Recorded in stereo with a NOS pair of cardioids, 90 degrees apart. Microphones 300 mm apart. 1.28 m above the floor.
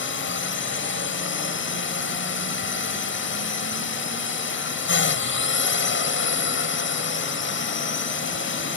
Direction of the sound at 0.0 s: 40° left.